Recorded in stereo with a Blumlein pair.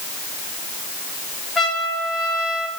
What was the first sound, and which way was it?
A trumpet, 5° left.